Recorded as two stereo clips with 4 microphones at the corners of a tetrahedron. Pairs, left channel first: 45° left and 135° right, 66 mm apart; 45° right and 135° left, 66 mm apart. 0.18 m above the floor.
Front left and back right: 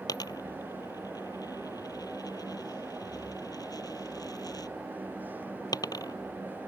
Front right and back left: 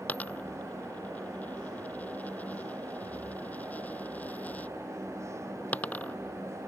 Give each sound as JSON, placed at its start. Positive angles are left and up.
{"t": 0.1, "sound": "a dropped coin", "azimuth_deg": 20}